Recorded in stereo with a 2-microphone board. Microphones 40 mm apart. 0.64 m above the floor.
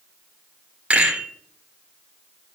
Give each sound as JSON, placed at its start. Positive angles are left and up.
{"t": 0.9, "sound": "a rattle", "side_deg": -30, "distance_m": 3.0}